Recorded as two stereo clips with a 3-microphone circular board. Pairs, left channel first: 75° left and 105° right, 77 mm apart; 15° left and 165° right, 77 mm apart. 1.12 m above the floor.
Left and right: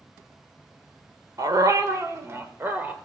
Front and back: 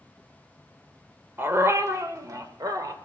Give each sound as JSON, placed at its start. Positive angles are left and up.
{"t": 1.4, "sound": "a dog barking", "azimuth_deg": -115, "distance_m": 1.1}